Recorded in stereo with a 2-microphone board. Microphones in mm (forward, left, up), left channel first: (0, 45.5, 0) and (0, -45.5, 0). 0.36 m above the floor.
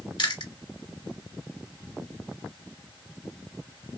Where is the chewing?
65° left (ahead or behind), 1.2 m.